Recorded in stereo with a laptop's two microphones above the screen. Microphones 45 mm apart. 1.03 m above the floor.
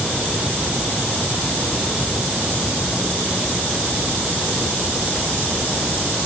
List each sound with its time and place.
Only background noise.